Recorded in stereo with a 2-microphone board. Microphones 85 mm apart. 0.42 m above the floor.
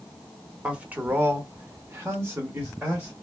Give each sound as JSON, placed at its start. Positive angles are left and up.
{"t": 0.6, "sound": "a man speaking", "side_deg": -15, "distance_m": 1.0}